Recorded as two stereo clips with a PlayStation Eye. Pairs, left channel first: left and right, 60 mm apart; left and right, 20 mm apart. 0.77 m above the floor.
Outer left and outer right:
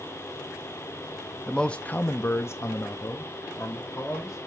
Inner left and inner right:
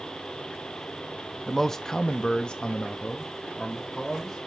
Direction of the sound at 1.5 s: 5° left (ahead or behind).